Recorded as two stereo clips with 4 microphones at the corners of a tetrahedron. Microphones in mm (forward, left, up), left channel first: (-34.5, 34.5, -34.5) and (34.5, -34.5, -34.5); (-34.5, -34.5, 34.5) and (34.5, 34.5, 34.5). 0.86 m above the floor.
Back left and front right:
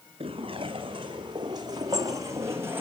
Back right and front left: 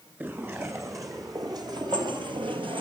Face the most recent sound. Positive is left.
turn(degrees=20)